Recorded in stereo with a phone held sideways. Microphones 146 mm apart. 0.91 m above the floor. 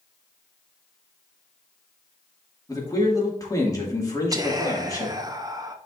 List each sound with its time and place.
2.7 s a man speaking: 25° left (ahead or behind), 2 m
4.3 s whispering: 25° right (ahead or behind), 0.8 m